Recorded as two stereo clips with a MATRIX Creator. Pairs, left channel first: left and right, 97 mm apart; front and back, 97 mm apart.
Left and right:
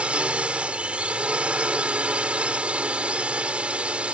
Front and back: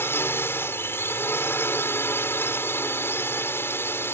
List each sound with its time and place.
0.0 s a drone: 25° right